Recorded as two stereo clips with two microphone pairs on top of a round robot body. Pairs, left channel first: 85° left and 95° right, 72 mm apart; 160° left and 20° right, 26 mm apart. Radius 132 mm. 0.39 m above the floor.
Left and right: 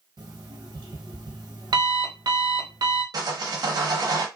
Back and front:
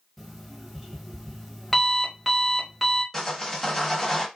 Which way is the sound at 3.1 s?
125° right.